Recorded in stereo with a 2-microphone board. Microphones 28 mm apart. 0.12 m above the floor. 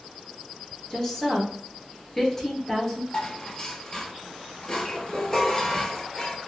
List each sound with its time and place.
0.9 s a woman speaking: 15° left (ahead or behind), 1.6 m
3.1 s dishes clattering: 25° left (ahead or behind), 1.4 m